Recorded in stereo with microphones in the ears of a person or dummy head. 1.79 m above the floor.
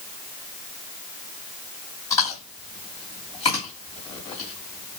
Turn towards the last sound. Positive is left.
turn(degrees=15)  # may be behind; listen again after turning